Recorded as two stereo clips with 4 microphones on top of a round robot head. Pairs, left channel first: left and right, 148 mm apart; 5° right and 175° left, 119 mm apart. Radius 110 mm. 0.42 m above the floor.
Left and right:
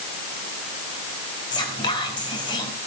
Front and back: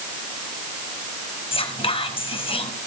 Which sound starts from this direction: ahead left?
Whispering, at 1.5 s.